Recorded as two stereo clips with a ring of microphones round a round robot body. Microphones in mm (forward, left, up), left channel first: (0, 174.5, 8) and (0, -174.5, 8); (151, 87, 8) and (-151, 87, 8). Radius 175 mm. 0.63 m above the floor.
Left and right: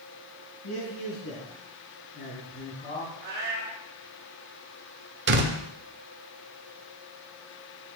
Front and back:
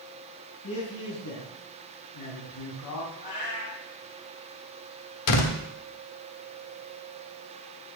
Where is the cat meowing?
25° right, 3 m.